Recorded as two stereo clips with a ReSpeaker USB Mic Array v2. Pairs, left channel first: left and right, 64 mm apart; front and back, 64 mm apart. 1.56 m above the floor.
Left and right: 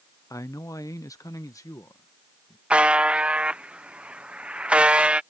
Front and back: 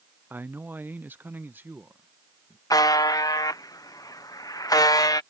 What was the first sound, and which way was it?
A man speaking, 120° left.